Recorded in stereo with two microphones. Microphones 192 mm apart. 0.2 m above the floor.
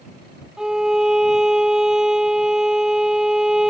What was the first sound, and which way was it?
A violin, 5° right (ahead or behind).